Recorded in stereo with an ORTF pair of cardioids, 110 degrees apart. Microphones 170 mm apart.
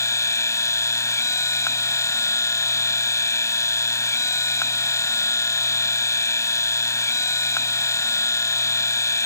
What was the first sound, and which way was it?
A machine running, 15° left.